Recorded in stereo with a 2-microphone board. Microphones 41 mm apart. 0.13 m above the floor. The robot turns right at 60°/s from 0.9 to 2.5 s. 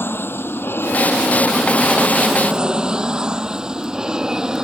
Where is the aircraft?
65° left (ahead or behind); by 4.6 s 15° right (ahead or behind).